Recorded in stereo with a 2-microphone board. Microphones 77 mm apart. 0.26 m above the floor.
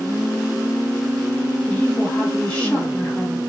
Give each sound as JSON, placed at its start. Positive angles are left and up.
{"t": 1.7, "sound": "a woman speaking", "side_deg": 20, "distance_m": 2.0}